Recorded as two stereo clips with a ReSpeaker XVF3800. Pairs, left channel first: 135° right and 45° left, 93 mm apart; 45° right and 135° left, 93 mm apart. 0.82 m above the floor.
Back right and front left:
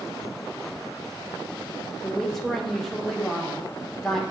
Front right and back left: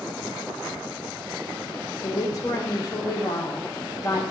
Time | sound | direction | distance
2.0 | a woman speaking | 50° right | 1.1 m